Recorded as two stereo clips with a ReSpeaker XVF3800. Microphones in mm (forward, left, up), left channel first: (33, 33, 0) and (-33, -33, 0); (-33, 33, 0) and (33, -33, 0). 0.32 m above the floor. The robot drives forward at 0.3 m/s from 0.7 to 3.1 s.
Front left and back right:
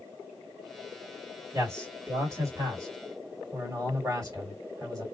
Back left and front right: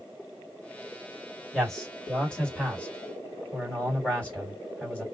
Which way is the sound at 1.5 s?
145° right.